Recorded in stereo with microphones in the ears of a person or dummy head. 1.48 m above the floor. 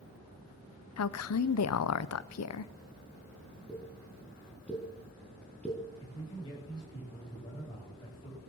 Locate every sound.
1.0 s a woman speaking: 85° left, 0.7 m
3.7 s a pop: 5° left (ahead or behind), 4 m
6.0 s a man speaking: 25° left (ahead or behind), 9 m